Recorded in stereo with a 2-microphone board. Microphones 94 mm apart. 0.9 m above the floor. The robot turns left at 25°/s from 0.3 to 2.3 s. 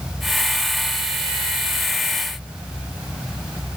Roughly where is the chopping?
I don't hear chopping.